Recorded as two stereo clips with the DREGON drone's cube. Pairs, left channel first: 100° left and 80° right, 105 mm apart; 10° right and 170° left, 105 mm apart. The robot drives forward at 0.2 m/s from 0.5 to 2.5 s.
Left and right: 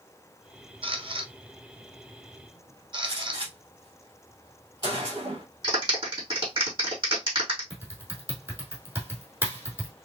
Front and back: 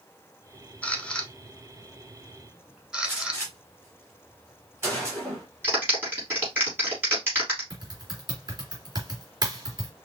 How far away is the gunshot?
About 3 m.